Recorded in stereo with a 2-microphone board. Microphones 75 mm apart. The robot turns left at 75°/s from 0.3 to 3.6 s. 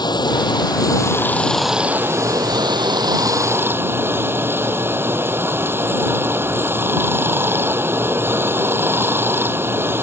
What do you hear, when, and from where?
0.0 s running water: 100° left; by 10.0 s 150° right